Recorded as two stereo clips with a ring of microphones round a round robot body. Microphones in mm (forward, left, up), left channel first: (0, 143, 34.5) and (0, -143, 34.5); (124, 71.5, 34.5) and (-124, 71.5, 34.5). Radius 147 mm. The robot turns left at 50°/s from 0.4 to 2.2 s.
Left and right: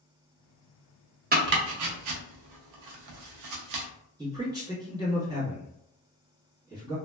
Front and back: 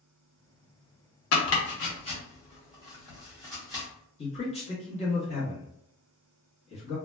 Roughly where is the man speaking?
Ahead right.